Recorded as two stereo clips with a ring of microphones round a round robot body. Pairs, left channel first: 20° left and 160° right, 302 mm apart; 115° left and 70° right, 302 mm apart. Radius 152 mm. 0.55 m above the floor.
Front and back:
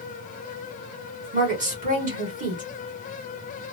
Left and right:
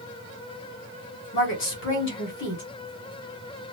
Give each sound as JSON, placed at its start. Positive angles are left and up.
{"t": 1.3, "sound": "a woman speaking", "azimuth_deg": 145, "distance_m": 1.3}